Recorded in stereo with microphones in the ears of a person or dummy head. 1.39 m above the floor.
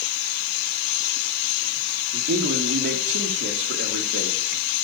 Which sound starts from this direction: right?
A man speaking, at 2.1 s.